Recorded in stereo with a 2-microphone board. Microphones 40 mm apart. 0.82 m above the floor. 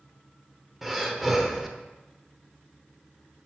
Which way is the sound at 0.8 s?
10° right (ahead or behind).